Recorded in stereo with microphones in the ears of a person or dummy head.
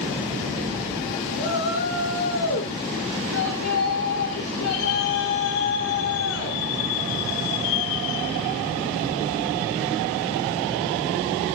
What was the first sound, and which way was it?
A shout, 65° left (ahead or behind).